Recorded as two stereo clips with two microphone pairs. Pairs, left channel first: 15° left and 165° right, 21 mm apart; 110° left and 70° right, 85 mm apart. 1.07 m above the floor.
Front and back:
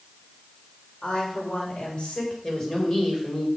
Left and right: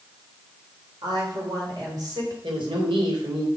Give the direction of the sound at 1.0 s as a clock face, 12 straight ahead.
1 o'clock.